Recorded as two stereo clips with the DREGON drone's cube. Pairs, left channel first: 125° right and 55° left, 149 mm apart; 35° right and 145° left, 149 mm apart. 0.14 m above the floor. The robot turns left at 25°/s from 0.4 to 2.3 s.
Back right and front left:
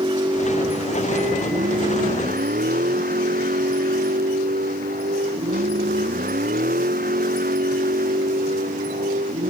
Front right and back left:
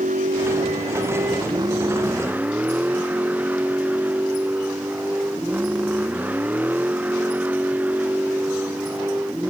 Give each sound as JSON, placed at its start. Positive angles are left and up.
{"t": 0.0, "sound": "a vehicle", "azimuth_deg": 115}